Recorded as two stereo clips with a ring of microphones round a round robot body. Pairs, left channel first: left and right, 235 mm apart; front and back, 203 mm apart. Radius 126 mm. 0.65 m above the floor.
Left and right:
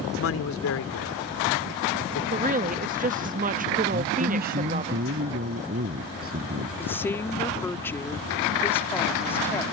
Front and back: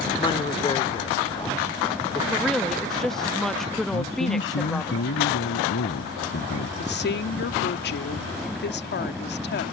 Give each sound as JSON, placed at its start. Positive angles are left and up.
{"t": 0.2, "sound": "a man speaking", "azimuth_deg": 65}
{"t": 2.3, "sound": "a woman speaking", "azimuth_deg": -85}
{"t": 3.9, "sound": "a man speaking", "azimuth_deg": -35}
{"t": 6.8, "sound": "a woman speaking", "azimuth_deg": 10}